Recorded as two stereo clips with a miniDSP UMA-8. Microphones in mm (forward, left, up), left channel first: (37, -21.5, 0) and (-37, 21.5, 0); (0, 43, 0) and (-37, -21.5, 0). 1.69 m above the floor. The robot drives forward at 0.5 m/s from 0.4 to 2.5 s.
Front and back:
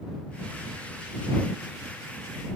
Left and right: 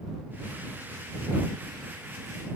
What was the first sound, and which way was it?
Only background noise.